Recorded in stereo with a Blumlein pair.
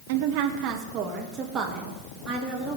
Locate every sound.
0.1 s a woman speaking: 55° right, 1.9 m; by 2.8 s 10° right, 4 m